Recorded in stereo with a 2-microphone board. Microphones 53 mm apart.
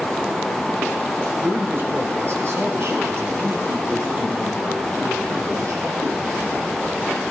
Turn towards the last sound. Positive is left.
turn(degrees=-70)  # may be behind; listen again after turning